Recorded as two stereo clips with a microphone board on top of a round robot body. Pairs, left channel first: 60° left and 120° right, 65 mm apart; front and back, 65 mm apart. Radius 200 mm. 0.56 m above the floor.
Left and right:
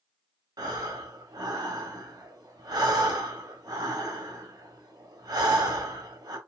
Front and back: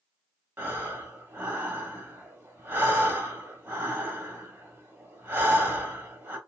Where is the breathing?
120° right, 1.0 m.